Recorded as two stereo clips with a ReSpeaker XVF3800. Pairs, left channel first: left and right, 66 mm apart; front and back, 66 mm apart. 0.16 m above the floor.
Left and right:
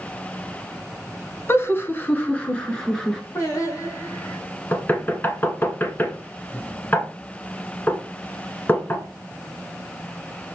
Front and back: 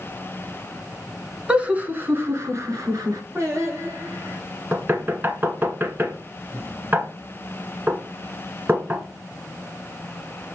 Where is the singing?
135° left, 3.5 m.